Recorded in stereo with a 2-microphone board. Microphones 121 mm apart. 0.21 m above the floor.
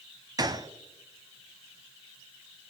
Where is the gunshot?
35° right (ahead or behind), 0.7 m.